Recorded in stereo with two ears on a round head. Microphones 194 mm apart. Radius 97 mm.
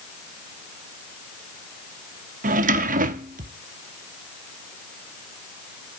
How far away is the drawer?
About 0.8 m.